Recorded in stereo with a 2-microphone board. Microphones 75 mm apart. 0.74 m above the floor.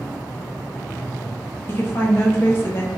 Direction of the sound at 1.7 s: 30° left (ahead or behind).